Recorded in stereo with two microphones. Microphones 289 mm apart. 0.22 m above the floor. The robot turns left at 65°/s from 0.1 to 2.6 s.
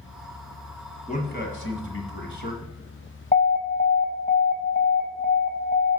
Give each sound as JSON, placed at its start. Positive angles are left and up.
{"t": 1.1, "sound": "a man speaking", "side_deg": 25, "distance_m": 1.8}
{"t": 3.3, "sound": "an alarm", "side_deg": 30, "distance_m": 1.0}